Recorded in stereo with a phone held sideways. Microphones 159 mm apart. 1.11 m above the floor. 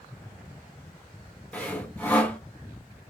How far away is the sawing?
About 0.6 m.